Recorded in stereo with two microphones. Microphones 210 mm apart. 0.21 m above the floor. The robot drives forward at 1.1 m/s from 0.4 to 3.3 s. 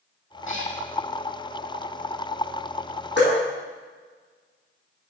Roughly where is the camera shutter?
No camera shutter in this recording.